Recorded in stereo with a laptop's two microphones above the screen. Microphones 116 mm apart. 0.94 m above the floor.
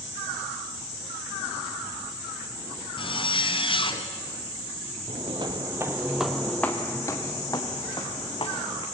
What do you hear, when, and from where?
3.0 s a zipper: 45° left (ahead or behind), 2.0 m
5.1 s footsteps: 50° right (ahead or behind), 1.8 m; by 8.8 s 45° left (ahead or behind), 4 m